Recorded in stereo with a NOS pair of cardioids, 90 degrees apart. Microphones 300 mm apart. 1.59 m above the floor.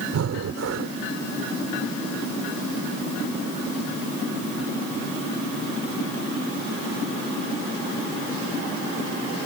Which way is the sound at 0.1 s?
55° right.